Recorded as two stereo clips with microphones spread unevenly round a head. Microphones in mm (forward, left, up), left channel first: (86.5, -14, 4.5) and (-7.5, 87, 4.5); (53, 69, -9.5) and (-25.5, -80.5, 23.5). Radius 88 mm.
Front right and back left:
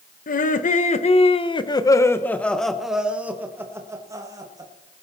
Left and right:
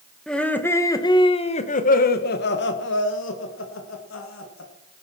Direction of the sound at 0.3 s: 25° right.